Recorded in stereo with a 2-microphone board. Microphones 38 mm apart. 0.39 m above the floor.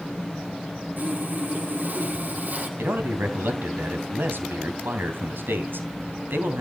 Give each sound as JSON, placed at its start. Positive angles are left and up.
{"t": 1.0, "sound": "sawing", "side_deg": -50, "distance_m": 3.5}
{"t": 2.8, "sound": "a man speaking", "side_deg": -65, "distance_m": 3.0}